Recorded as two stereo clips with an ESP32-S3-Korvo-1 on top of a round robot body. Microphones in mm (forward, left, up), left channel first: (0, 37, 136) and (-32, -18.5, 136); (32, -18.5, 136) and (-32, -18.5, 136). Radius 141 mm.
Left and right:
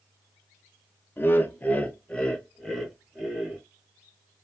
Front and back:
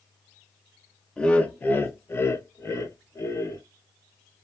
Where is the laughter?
65° left, 0.9 m; by 3.6 s 30° right, 1.5 m.